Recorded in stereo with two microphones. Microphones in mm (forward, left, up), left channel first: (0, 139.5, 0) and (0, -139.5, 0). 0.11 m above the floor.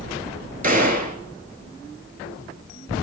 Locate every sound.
0.6 s a gunshot: 30° right (ahead or behind), 0.6 m